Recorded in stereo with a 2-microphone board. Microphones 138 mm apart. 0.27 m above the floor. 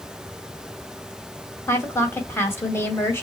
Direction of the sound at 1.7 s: 20° left (ahead or behind).